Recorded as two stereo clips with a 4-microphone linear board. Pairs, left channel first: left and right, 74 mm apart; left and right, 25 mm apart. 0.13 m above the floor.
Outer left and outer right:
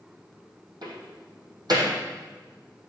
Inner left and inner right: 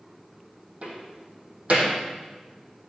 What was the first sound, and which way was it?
A door slam, 60° right (ahead or behind).